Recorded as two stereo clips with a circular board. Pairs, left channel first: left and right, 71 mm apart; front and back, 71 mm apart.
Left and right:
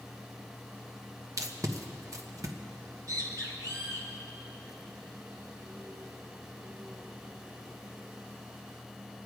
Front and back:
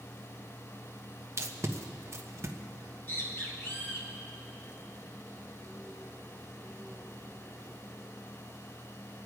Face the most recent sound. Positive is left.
turn(degrees=-60)